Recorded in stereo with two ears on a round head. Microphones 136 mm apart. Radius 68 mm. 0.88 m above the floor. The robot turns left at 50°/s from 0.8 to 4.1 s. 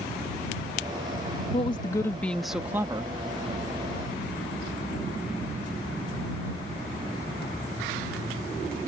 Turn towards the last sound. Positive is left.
turn(degrees=-80)